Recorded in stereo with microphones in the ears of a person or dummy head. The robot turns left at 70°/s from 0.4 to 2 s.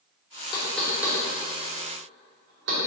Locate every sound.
0.5 s knocking: 30° left (ahead or behind), 2.5 m; by 2.8 s 65° right (ahead or behind), 2.5 m